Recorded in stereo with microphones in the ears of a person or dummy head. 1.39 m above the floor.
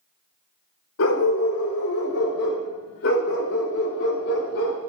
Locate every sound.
1.0 s a dog barking: 75° left (ahead or behind), 2.5 m; by 4.8 s 65° left (ahead or behind), 4 m